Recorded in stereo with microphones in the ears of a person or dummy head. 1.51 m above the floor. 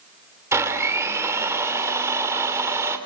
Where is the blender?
15° right (ahead or behind), 2.5 m.